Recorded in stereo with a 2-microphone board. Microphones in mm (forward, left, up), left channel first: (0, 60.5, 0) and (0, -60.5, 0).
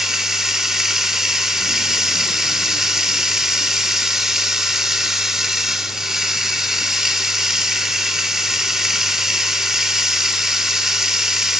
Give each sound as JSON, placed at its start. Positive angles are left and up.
{"t": 0.0, "sound": "running water", "side_deg": -5, "distance_m": 0.9}